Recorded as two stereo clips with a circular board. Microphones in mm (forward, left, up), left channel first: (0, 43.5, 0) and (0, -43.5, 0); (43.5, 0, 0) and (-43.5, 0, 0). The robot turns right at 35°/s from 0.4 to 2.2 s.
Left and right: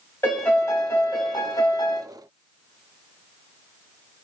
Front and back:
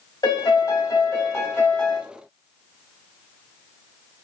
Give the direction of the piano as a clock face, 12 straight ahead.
11 o'clock.